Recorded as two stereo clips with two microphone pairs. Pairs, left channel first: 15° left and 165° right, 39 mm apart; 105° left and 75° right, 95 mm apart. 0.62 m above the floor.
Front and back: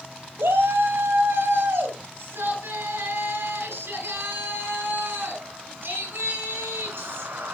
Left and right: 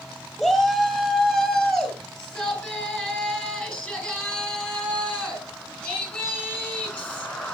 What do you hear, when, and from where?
0.4 s a shout: 170° right, 3 m; by 7.5 s 175° left, 7 m